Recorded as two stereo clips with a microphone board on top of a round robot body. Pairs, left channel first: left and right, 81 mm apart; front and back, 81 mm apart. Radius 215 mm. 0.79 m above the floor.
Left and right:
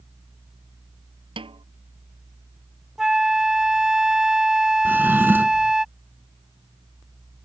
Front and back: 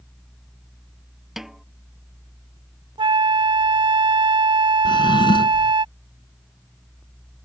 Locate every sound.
1.4 s a snare drum: 95° right
3.0 s a flute: 175° right
4.8 s a drawer: 25° right